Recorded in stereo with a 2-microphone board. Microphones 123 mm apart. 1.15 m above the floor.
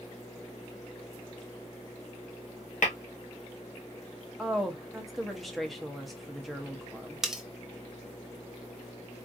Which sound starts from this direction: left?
Tapping, at 2.8 s.